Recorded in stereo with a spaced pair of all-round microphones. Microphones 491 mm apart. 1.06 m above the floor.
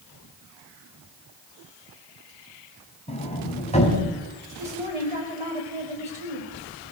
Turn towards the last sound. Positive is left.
turn(degrees=-75)  # may be behind; listen again after turning